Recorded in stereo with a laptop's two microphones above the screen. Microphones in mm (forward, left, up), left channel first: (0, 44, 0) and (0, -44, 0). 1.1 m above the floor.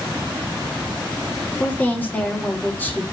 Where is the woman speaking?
20° left (ahead or behind), 1.8 m.